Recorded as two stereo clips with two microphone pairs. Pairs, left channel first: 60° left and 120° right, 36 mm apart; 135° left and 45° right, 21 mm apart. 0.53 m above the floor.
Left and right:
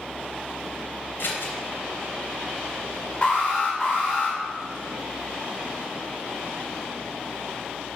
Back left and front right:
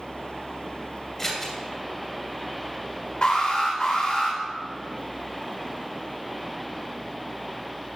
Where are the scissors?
55° left, 2.5 m.